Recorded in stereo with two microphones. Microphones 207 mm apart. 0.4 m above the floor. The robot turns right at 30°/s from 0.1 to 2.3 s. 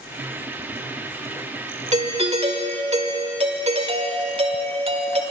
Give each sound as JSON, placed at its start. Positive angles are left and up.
{"t": 1.9, "sound": "a doorbell", "side_deg": -35, "distance_m": 1.5}